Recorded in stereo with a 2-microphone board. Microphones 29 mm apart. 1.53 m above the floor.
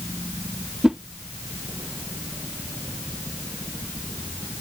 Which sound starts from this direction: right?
A whoosh, at 0.8 s.